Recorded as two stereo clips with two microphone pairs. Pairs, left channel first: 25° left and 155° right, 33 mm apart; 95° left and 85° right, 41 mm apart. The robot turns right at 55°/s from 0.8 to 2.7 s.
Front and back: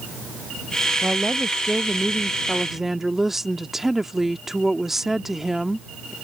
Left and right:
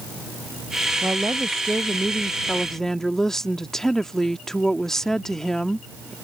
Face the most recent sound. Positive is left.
turn(degrees=145)